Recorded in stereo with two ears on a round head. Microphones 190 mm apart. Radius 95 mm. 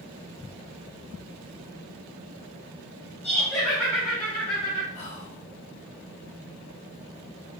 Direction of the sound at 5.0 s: 30° left (ahead or behind).